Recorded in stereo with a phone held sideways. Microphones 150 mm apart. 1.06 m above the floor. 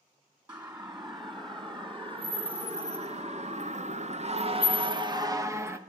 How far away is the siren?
About 3 m.